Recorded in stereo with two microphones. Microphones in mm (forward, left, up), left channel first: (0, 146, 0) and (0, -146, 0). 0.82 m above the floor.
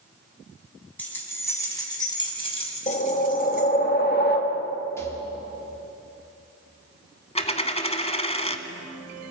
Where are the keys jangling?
5° left (ahead or behind), 4.5 m; by 3.7 s 35° left (ahead or behind), 3 m.